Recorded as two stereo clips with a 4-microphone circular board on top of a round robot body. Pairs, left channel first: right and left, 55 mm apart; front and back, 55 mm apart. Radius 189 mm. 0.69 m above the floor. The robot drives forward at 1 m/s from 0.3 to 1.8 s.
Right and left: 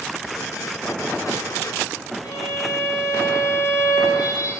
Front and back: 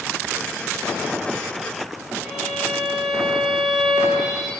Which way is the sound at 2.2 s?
95° right.